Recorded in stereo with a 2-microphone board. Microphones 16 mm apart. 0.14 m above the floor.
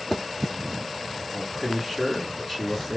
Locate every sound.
1.3 s a man speaking: 10° right (ahead or behind), 1.6 m